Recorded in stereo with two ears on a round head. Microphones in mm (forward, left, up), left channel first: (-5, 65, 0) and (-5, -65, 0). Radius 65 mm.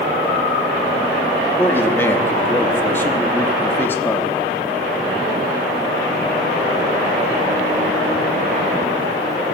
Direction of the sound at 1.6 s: 15° left (ahead or behind).